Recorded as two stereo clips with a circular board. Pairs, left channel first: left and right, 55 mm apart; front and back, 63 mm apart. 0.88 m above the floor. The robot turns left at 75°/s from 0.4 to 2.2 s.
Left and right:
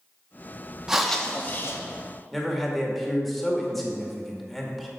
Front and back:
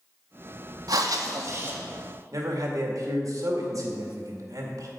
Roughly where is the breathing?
Behind.